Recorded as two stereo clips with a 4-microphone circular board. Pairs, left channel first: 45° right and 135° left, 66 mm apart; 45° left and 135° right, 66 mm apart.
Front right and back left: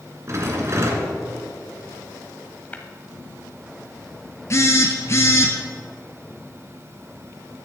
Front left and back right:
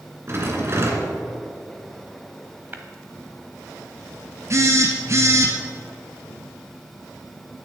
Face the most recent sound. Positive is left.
turn(degrees=-90)